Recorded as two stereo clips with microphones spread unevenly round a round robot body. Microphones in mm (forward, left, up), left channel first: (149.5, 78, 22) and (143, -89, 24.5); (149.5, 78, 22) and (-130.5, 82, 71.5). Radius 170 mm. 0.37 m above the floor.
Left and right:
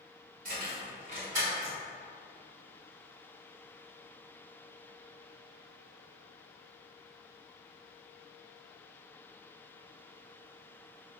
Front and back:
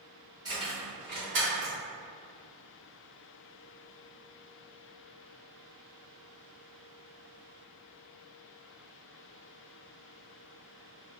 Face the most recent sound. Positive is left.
turn(degrees=-135)